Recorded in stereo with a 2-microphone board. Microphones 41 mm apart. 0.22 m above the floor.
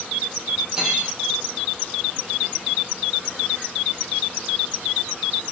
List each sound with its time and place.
0.8 s cutlery clinking: 15° right (ahead or behind), 7.5 m